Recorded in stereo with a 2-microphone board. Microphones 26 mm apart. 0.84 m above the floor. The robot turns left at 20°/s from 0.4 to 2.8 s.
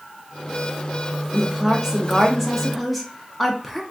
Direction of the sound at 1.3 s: 20° right (ahead or behind).